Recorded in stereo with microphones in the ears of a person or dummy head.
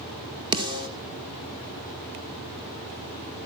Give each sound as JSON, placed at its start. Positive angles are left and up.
{"t": 0.5, "sound": "a snare drum", "side_deg": -25, "distance_m": 2.0}